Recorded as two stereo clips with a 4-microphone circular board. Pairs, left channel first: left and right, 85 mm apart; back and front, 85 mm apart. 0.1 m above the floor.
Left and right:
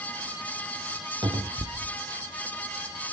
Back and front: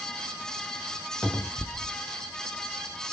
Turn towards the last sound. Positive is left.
turn(degrees=-100)